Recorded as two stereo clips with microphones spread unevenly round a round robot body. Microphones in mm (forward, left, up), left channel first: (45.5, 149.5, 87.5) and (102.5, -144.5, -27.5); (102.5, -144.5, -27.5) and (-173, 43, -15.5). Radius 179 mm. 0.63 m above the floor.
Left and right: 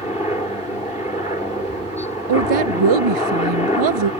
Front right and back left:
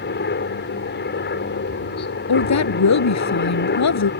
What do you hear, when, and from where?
0.0 s a helicopter: 20° left
2.3 s a woman speaking: 75° right